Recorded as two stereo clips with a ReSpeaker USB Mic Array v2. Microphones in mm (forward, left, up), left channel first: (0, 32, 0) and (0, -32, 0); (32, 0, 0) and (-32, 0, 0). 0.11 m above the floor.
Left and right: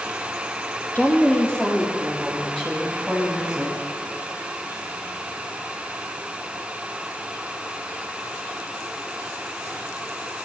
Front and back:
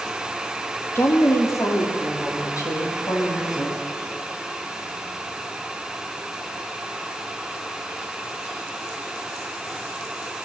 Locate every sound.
0.9 s a woman speaking: 30° left, 2.5 m; by 3.8 s 5° right, 5 m